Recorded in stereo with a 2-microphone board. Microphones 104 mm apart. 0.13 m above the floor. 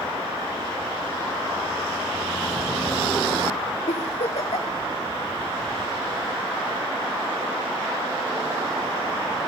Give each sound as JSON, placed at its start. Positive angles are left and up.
{"t": 3.9, "sound": "a giggle", "side_deg": 75, "distance_m": 1.6}